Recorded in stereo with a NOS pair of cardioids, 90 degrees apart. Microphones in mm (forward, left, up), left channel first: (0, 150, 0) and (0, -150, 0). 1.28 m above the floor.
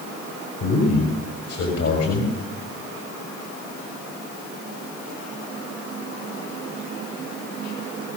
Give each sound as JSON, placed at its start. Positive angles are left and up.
{"t": 0.6, "sound": "a man speaking", "azimuth_deg": 60, "distance_m": 6.0}